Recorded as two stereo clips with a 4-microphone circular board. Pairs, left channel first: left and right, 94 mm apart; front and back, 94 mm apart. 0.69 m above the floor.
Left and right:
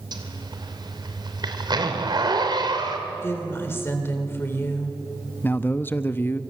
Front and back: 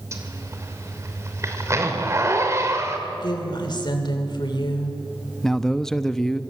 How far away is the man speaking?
About 0.7 m.